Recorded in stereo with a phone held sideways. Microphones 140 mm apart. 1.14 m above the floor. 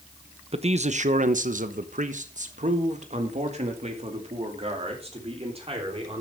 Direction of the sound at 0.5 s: 45° right (ahead or behind).